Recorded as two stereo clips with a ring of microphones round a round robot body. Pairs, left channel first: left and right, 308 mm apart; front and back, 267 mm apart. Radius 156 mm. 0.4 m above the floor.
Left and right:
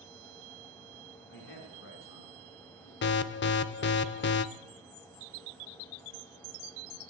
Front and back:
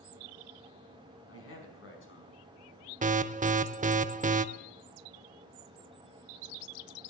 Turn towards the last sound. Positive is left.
turn(degrees=130)